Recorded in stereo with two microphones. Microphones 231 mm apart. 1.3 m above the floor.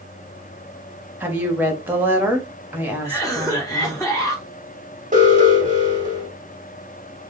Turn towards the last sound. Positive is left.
turn(degrees=-35)  # may be behind; listen again after turning